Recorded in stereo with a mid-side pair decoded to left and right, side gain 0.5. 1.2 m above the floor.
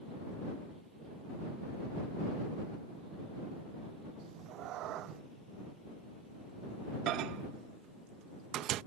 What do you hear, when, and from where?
4.2 s a cat meowing: 70° right
7.1 s a microwave: 70° right